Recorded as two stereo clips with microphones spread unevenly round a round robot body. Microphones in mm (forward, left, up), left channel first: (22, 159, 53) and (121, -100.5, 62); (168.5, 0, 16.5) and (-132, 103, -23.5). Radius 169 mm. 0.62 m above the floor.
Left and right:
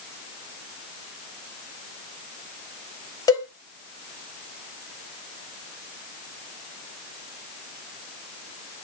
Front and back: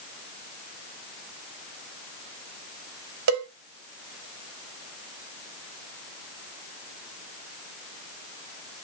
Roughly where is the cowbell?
Behind.